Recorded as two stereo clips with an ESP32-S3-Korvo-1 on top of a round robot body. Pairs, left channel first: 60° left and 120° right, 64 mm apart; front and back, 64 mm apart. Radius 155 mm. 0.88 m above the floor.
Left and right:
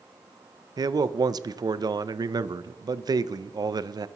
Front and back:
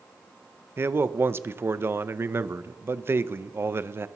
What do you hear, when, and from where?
0.8 s a man speaking: 125° right, 0.5 m